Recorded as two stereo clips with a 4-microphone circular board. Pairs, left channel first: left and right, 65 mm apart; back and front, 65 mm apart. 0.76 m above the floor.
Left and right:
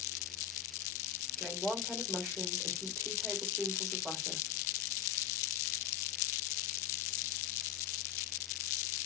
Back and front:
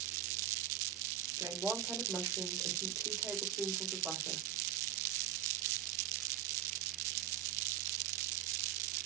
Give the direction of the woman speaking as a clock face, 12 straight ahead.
12 o'clock.